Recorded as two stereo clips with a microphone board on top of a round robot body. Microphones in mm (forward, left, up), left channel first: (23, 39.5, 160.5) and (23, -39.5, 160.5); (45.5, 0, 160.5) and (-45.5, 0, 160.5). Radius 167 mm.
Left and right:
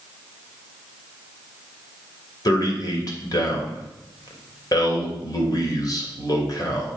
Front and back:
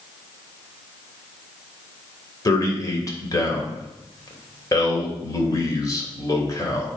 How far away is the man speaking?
About 2.5 m.